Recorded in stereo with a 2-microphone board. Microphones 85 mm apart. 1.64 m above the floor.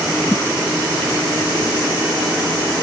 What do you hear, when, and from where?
0.2 s a thud: 35° left (ahead or behind), 1.8 m